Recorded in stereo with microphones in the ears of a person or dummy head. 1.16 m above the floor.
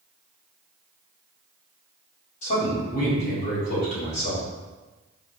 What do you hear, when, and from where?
2.4 s a man speaking: 45° left (ahead or behind), 1.8 m